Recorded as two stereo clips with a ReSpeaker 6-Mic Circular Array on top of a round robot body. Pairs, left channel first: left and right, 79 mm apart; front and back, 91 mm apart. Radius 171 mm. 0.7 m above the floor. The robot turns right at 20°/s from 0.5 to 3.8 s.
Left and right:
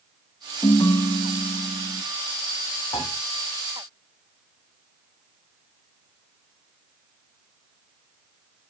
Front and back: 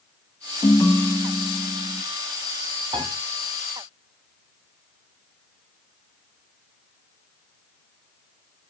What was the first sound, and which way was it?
A ringtone, 55° left.